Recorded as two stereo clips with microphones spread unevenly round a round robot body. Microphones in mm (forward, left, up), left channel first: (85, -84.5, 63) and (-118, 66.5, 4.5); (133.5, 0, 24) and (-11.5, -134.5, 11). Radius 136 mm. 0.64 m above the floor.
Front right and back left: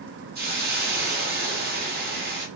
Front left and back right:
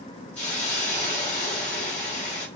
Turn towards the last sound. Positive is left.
turn(degrees=130)